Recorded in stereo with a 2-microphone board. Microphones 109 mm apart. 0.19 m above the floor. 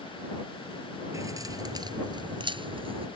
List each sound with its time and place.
1.1 s keys jangling: 30° right (ahead or behind); by 3.1 s 60° right (ahead or behind)